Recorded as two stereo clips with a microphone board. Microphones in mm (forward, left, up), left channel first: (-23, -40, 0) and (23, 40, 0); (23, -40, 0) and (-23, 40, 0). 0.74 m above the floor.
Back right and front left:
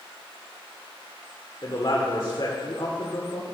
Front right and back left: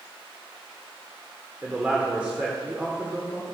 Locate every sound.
1.6 s a man speaking: 165° right, 2.0 m